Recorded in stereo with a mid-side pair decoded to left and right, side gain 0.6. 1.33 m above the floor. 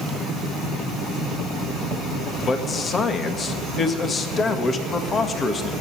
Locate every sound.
2.4 s a man speaking: 30° left, 1.9 m